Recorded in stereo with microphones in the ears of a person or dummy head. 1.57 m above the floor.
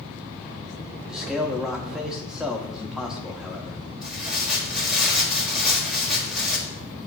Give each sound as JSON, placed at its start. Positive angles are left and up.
{"t": 1.1, "sound": "a man speaking", "side_deg": 0, "distance_m": 0.6}
{"t": 4.0, "sound": "tearing paper", "side_deg": -5, "distance_m": 1.2}